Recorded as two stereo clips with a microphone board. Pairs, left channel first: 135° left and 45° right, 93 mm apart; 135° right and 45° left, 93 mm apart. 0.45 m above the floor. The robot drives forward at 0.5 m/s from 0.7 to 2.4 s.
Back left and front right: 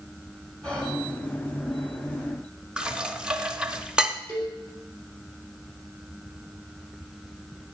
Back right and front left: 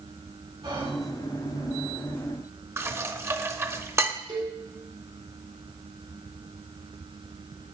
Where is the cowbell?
80° left, 3 m.